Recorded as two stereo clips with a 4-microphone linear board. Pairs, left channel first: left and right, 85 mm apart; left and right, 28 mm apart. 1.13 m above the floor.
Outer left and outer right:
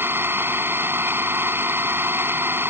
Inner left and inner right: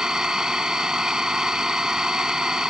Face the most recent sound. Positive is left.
turn(degrees=-25)  # may be behind; listen again after turning